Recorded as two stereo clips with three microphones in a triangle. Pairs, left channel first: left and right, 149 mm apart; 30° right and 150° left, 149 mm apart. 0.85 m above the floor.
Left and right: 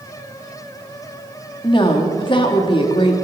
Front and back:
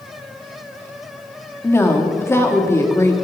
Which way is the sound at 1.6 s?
40° left.